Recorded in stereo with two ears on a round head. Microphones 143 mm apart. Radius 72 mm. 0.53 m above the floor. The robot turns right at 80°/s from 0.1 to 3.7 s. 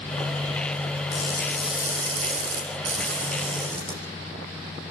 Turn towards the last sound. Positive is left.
turn(degrees=-15)